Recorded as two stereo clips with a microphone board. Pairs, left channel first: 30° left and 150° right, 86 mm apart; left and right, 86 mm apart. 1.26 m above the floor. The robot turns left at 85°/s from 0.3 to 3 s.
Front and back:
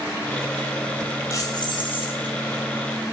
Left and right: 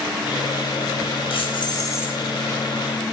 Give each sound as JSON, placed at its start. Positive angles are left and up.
{"t": 1.3, "sound": "keys jangling", "azimuth_deg": 90, "distance_m": 7.5}